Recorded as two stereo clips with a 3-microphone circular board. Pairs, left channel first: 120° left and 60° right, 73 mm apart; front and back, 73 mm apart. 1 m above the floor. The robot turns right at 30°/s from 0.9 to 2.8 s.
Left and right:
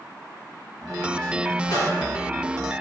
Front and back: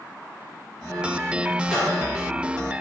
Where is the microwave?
100° left, 2.0 m; by 1.9 s 110° left, 2.0 m.